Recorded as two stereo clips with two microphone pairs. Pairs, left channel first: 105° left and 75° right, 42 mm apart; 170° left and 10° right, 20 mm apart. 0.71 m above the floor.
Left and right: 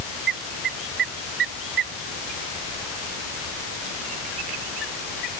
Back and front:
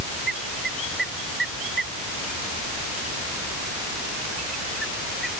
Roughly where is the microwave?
No microwave in this recording.